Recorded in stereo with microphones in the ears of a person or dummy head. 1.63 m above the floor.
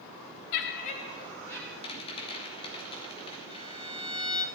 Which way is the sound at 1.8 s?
30° left (ahead or behind).